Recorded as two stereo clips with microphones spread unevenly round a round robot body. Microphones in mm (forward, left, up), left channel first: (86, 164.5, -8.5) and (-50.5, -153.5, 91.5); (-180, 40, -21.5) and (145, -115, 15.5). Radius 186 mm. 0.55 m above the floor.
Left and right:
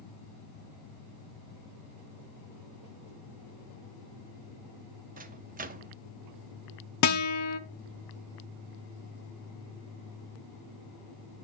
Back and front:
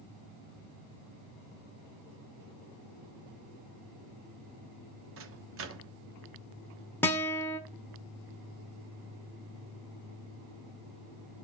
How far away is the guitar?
About 1.1 m.